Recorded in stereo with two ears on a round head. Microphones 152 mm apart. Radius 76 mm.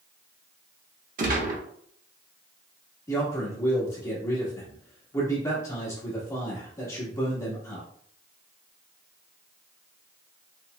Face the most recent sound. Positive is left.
turn(degrees=20)  # may be behind; listen again after turning